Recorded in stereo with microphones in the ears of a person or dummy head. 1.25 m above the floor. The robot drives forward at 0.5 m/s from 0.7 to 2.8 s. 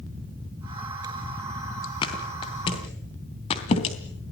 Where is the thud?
25° left (ahead or behind), 3 m; by 4.0 s 30° left (ahead or behind), 3 m.